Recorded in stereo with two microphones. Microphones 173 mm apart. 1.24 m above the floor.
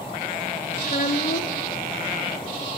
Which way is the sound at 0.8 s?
60° left (ahead or behind).